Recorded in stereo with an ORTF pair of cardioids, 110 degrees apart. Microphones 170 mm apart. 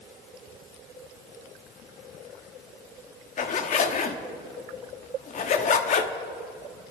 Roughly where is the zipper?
Ahead left.